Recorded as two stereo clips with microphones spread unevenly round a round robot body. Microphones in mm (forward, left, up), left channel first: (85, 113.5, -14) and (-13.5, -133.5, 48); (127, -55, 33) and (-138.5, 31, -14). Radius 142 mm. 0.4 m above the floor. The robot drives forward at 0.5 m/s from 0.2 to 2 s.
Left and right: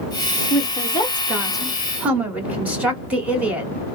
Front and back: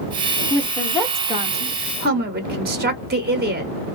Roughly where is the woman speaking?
Ahead left.